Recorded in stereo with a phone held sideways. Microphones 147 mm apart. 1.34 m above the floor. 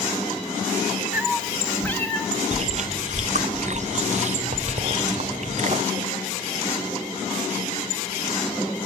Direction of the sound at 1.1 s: 10° right (ahead or behind).